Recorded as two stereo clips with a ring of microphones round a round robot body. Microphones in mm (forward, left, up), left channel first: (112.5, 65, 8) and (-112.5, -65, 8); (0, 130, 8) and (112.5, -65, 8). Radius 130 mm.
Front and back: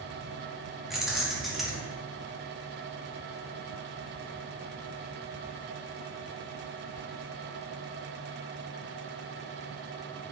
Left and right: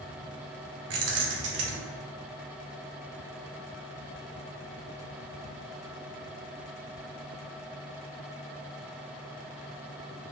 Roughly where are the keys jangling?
Ahead right.